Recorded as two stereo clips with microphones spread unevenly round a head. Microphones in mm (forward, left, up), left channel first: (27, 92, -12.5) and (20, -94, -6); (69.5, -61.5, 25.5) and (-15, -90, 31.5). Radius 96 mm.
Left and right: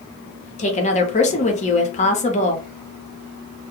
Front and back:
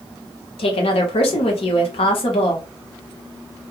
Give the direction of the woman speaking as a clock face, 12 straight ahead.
11 o'clock.